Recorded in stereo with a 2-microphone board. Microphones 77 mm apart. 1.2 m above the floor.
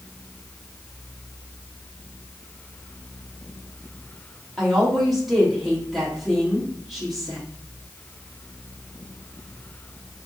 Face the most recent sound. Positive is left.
turn(degrees=0)  # may be behind; listen again after turning